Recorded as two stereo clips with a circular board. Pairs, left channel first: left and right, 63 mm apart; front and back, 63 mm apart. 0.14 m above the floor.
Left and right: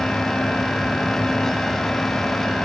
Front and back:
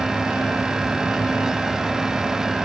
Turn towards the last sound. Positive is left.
No sound to turn to.